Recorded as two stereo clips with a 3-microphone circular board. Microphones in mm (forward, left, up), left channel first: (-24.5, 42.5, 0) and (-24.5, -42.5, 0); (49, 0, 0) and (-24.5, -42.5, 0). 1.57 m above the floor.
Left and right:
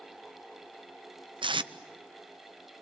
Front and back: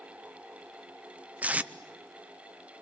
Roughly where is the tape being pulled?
Right.